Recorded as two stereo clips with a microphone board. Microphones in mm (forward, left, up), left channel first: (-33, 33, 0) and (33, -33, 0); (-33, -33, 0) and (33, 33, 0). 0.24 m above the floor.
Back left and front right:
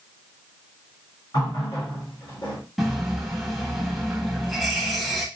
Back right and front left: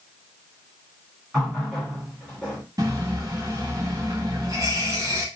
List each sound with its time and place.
1.3 s a running tap: 140° left, 1.7 m
2.8 s a running tap: 45° left, 0.8 m